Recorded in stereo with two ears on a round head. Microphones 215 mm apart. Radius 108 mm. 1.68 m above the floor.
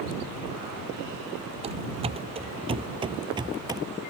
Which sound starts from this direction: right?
Running footsteps, at 1.6 s.